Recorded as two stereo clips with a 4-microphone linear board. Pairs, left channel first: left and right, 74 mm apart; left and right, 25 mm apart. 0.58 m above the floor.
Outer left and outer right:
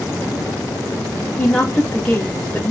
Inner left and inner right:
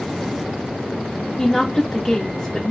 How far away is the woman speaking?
About 0.9 m.